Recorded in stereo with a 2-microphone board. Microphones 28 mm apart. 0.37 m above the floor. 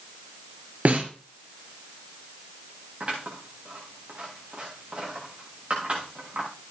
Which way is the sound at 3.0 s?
50° right (ahead or behind).